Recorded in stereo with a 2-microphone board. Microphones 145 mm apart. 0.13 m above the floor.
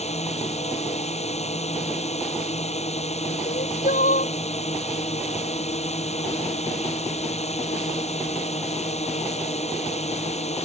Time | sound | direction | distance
0.0 | a drone | 50° left (ahead or behind) | ?
3.5 | crying | 65° left (ahead or behind) | ?